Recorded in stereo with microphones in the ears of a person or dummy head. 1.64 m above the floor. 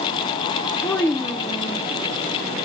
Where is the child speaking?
10° left (ahead or behind), 0.7 m.